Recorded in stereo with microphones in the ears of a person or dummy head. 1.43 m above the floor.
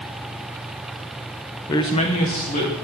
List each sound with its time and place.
1.7 s a man speaking: 20° left (ahead or behind), 0.5 m; by 2.7 s 40° left (ahead or behind), 1.9 m